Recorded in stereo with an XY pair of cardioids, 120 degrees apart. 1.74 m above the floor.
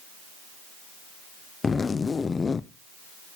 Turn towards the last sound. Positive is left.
turn(degrees=25)